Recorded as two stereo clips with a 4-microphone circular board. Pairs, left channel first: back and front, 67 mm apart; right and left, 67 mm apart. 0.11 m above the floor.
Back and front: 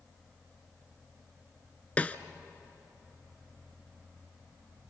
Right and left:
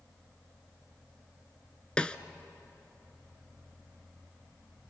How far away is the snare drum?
About 0.9 m.